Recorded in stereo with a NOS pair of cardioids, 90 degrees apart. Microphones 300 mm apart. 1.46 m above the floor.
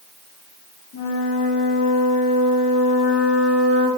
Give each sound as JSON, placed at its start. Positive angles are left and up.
{"t": 0.9, "sound": "a flute", "azimuth_deg": 70, "distance_m": 3.0}